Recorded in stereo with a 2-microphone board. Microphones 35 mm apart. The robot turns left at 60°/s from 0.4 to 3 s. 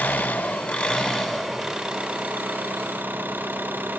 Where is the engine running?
70° left, 3 m; by 4.0 s 85° right, 3 m.